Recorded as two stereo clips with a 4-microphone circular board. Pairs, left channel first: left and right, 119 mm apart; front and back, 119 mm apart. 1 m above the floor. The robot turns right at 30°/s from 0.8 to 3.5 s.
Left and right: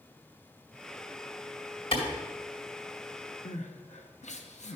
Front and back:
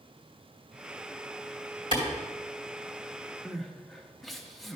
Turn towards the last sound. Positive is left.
turn(degrees=90)